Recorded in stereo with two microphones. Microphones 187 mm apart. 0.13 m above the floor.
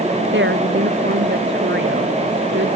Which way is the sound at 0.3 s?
80° right.